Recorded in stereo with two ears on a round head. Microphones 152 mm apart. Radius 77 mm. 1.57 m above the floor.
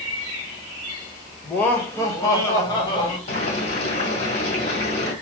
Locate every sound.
1.4 s laughter: 10° left (ahead or behind), 0.9 m; by 3.2 s 30° left (ahead or behind), 1.7 m
3.3 s boiling: 45° left (ahead or behind), 1.7 m